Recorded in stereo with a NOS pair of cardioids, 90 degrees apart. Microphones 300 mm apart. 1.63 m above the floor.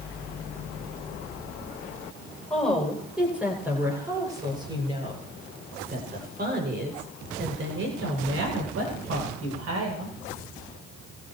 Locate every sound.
2.5 s a woman speaking: straight ahead, 8.5 m; by 10.2 s 60° right, 9 m